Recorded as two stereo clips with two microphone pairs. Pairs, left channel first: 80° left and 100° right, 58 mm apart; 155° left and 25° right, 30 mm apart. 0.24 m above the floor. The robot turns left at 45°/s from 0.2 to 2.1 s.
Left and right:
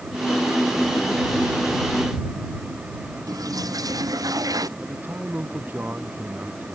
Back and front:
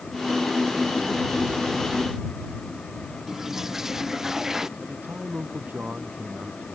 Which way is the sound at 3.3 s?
100° right.